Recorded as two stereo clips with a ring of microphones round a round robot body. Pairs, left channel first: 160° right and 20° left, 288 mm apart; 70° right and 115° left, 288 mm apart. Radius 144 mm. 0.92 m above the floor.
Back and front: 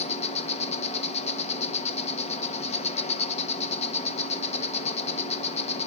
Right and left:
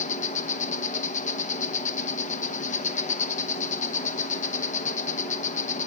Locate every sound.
0.0 s an insect: 110° right, 0.9 m